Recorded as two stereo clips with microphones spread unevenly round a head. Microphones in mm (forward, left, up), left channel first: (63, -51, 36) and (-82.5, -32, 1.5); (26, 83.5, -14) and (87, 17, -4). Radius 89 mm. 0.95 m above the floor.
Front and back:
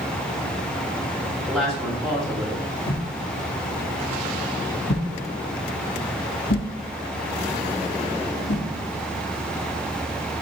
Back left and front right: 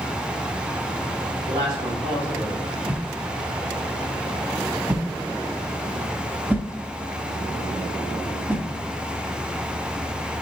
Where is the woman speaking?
95° right, 2.5 m.